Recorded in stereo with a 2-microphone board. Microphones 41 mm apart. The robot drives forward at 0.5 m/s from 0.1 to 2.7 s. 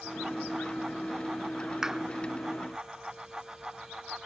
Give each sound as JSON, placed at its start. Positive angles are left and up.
{"t": 1.8, "sound": "a clap", "side_deg": -10}